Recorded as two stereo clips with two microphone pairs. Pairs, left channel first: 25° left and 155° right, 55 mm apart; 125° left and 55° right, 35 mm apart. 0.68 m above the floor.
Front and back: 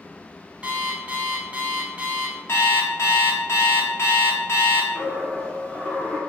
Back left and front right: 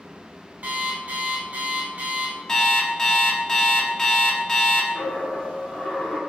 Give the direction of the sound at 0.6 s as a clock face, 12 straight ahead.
3 o'clock.